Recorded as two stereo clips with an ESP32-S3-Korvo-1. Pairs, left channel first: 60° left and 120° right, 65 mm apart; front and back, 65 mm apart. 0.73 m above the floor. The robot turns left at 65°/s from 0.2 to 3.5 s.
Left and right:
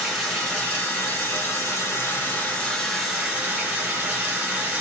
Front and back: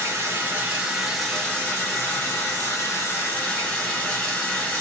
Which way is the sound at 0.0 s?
155° left.